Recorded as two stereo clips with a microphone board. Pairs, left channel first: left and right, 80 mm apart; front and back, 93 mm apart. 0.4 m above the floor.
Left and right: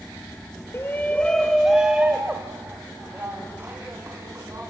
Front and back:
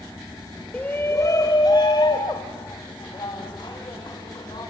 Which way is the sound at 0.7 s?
65° left.